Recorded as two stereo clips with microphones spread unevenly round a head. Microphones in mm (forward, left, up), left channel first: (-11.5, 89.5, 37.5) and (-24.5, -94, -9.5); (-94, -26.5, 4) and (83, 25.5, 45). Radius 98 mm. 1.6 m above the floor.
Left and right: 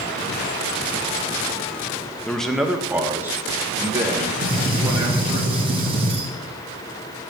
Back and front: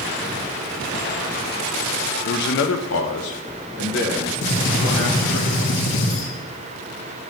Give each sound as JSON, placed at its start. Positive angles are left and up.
{"t": 2.2, "sound": "a man speaking", "azimuth_deg": 155, "distance_m": 0.5}
{"t": 4.4, "sound": "a gunshot", "azimuth_deg": -160, "distance_m": 1.6}